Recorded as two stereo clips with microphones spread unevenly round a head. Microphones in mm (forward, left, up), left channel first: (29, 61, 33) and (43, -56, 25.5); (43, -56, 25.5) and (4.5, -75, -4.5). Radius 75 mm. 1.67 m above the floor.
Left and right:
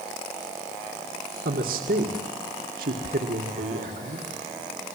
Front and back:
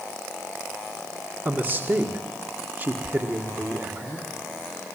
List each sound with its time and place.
1.4 s a man speaking: 100° right, 1.9 m